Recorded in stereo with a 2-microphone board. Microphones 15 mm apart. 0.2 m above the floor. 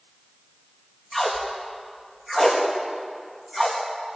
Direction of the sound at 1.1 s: 5° right (ahead or behind).